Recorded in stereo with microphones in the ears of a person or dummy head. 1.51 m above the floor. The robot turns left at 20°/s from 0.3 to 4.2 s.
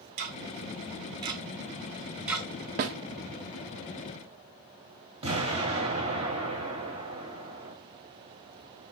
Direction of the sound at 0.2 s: 45° right (ahead or behind).